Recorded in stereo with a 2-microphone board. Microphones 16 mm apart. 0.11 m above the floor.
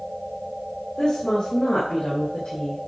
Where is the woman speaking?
60° left (ahead or behind), 4.5 m; by 2.8 s 70° left (ahead or behind), 4 m.